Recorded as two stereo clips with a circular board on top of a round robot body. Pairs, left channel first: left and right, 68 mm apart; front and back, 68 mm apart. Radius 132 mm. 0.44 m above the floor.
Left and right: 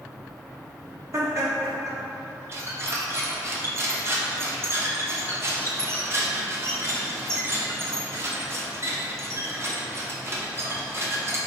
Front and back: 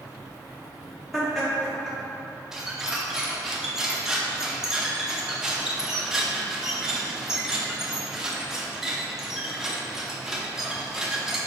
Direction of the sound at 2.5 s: 105° right.